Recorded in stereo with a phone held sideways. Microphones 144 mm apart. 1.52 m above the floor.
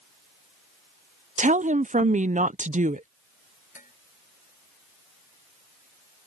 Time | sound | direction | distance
1.4 | a woman speaking | 60° right (ahead or behind) | ?
3.8 | dishes clattering | 60° left (ahead or behind) | ?